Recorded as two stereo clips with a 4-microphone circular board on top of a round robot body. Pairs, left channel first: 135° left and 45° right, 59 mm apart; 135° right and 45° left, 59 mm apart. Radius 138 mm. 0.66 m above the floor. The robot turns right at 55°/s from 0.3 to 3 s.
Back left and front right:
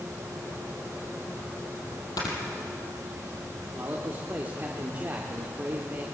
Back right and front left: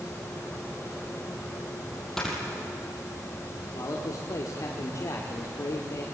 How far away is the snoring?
About 4.5 m.